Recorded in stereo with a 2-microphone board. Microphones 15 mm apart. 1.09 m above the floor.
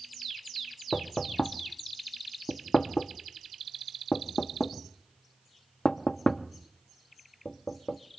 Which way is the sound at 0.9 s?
45° left (ahead or behind).